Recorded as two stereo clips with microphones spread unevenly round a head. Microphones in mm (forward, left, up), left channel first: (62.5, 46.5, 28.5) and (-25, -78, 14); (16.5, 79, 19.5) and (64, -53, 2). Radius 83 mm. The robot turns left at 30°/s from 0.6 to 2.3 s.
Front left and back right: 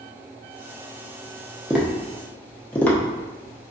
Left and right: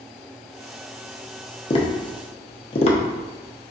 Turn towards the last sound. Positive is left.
turn(degrees=130)